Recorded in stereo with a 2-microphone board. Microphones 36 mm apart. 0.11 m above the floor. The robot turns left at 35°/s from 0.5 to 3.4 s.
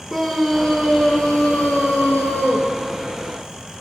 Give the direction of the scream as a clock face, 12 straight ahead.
6 o'clock.